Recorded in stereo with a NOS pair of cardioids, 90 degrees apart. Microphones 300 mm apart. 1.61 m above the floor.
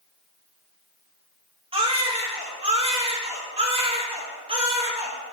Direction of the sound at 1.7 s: 20° right.